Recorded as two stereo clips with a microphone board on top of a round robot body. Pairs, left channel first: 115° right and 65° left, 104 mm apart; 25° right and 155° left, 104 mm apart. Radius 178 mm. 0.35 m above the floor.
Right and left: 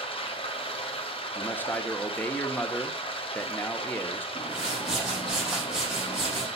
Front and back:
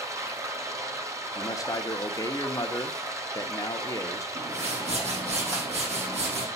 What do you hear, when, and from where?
0.0 s running water: 140° right, 1.5 m
1.4 s a man speaking: 50° right, 1.2 m
4.3 s a whoosh: 150° left, 5 m